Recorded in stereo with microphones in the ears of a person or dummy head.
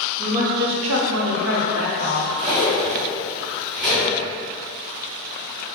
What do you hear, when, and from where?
0.2 s a woman speaking: 40° right (ahead or behind), 0.7 m; by 2.3 s 60° right (ahead or behind), 1.2 m
2.4 s cutlery clinking: 30° right (ahead or behind), 1.9 m